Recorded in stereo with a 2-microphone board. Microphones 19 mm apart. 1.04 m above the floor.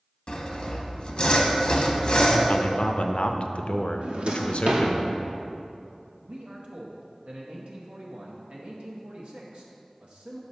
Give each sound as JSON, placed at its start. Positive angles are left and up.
{"t": 0.3, "sound": "sawing", "side_deg": 45, "distance_m": 0.8}
{"t": 2.5, "sound": "a man speaking", "side_deg": 65, "distance_m": 0.5}
{"t": 4.0, "sound": "a drawer", "side_deg": -65, "distance_m": 0.9}
{"t": 6.2, "sound": "a man speaking", "side_deg": -65, "distance_m": 0.8}